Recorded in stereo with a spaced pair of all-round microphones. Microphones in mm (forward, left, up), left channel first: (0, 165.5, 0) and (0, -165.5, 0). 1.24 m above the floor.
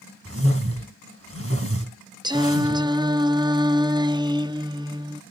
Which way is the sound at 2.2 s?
15° right (ahead or behind).